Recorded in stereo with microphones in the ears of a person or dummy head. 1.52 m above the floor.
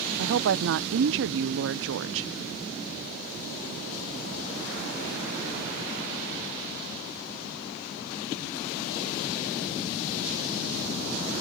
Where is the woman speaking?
65° right (ahead or behind).